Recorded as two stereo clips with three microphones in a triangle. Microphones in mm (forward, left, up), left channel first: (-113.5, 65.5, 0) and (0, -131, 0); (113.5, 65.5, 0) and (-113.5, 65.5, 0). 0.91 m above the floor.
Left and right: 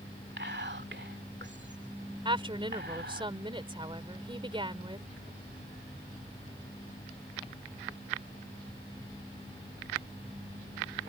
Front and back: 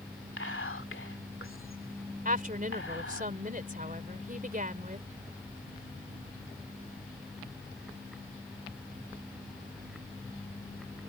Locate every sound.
0.4 s whispering: 25° right
2.2 s a woman speaking: 130° right